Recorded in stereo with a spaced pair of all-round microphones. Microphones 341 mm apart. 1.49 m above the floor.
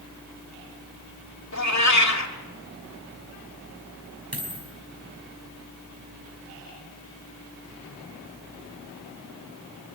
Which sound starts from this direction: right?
A dropped coin, at 4.3 s.